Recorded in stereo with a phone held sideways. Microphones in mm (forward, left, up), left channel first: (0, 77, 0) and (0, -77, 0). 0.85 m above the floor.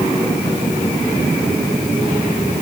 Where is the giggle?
I don't hear a giggle.